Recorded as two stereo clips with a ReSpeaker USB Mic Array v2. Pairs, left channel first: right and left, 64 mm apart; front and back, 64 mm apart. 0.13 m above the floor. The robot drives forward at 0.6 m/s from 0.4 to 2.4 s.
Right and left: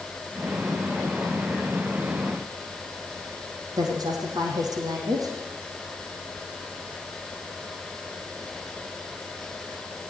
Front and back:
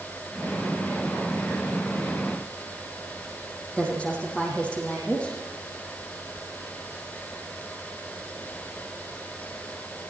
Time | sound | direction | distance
3.8 | a woman speaking | 70° left | 5 m